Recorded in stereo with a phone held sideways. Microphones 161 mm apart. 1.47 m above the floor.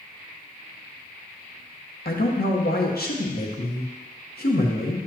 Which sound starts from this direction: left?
A man speaking, at 2.0 s.